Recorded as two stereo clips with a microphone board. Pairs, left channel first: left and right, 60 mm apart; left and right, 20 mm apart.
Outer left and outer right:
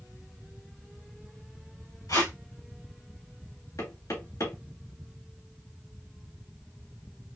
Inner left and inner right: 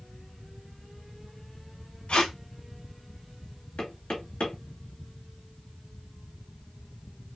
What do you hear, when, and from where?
2.1 s tape being pulled: 80° left, 1.9 m
3.8 s knocking: 65° left (ahead or behind), 3 m